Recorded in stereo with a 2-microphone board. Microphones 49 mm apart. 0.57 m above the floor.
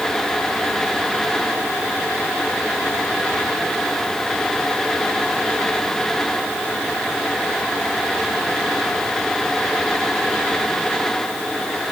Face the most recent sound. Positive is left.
No sound to turn to.